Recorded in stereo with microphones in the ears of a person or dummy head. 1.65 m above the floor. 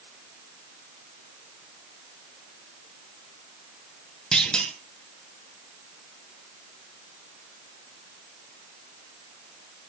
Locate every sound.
4.3 s a clunk: centre (ahead or behind), 1.6 m